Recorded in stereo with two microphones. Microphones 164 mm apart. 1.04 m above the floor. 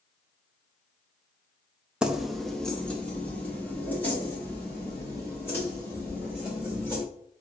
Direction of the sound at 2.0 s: 5° right (ahead or behind).